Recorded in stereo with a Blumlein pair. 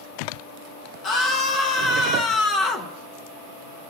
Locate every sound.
1.0 s a scream: 30° left, 1.1 m